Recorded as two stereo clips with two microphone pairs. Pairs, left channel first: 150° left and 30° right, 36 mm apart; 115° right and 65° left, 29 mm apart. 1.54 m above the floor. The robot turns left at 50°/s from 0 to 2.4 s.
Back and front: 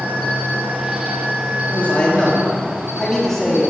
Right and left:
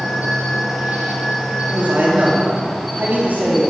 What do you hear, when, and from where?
0.0 s an insect: 95° left, 6 m; by 3.7 s 25° right, 6 m
1.6 s a man speaking: 115° left, 4 m; by 3.7 s 70° left, 4 m